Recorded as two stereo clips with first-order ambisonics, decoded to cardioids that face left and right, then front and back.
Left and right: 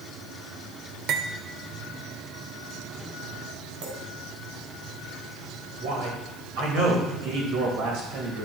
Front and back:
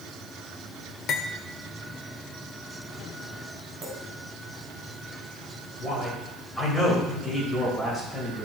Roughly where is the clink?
Right.